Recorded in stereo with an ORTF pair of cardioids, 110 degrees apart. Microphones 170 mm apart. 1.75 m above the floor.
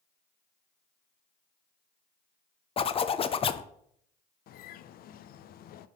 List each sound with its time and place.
2.8 s a zipper: 35° left, 0.7 m
4.5 s a bird: 60° left, 0.6 m